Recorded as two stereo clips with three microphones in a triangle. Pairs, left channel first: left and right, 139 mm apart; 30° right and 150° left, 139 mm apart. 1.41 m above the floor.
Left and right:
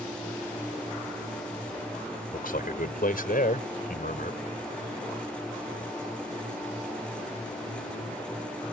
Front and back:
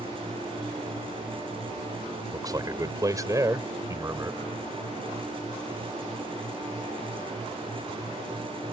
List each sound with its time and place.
2.3 s a man speaking: 85° left; by 4.4 s 80° left